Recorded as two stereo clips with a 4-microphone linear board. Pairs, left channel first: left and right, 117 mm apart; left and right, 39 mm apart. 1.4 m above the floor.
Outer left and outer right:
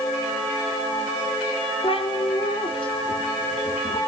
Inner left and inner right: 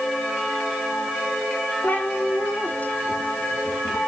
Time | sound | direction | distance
1.8 | a cat meowing | 50° left (ahead or behind) | 1.8 m